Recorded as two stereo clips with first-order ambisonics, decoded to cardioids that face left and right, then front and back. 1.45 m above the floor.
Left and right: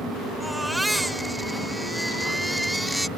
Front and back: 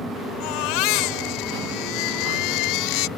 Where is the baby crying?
5° right.